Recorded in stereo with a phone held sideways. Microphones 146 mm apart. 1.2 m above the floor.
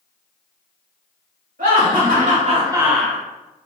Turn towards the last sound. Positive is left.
turn(degrees=15)  # may be behind; listen again after turning